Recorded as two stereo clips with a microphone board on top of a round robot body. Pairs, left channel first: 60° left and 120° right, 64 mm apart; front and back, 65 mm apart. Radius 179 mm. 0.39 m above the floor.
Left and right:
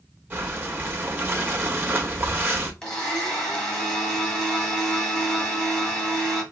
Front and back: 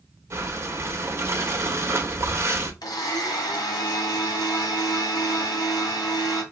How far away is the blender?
About 1.4 m.